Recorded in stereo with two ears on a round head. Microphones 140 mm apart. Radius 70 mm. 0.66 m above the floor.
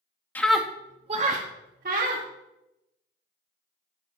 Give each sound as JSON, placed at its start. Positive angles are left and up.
{"t": 0.3, "sound": "a scream", "side_deg": 10, "distance_m": 0.6}